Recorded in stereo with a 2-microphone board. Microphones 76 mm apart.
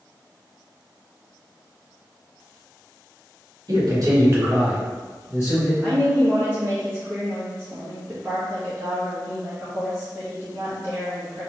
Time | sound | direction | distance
3.7 | a man speaking | 55° right (ahead or behind) | 1.5 m
5.8 | a woman speaking | 30° right (ahead or behind) | 0.9 m